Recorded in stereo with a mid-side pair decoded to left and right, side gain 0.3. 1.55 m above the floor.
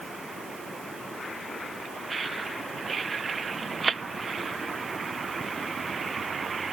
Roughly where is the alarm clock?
No alarm clock in this recording.